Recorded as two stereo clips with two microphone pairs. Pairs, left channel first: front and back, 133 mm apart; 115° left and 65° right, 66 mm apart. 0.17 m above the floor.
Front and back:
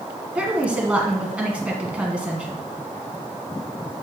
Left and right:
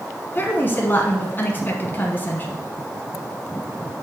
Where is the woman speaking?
110° left, 1.3 m.